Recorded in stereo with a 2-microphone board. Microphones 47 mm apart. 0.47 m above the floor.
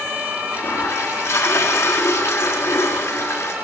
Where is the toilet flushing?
75° left (ahead or behind), 4.5 m.